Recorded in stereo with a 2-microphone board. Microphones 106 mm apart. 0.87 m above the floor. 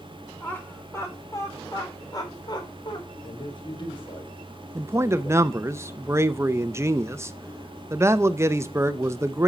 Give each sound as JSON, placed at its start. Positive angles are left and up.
{"t": 0.4, "sound": "laughter", "side_deg": 20, "distance_m": 3.5}
{"t": 3.2, "sound": "a man speaking", "side_deg": 50, "distance_m": 2.5}
{"t": 4.8, "sound": "a man speaking", "side_deg": -25, "distance_m": 0.6}